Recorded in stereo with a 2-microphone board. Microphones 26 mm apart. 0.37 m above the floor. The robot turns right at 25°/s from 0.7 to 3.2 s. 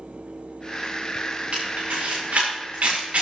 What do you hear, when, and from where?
1.5 s a camera shutter: 65° right (ahead or behind), 6.5 m; by 3.2 s 70° right (ahead or behind), 6.5 m